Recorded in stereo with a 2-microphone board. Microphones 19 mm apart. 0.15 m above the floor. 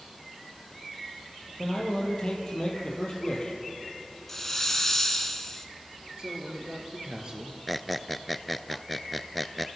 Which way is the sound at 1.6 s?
35° left (ahead or behind).